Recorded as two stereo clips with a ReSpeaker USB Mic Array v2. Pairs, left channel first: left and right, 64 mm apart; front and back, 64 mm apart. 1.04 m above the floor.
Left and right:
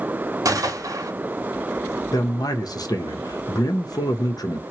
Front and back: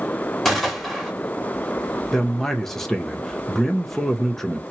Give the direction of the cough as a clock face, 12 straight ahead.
I don't hear a cough.